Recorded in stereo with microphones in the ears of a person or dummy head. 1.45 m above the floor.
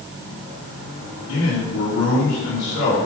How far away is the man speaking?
About 4 m.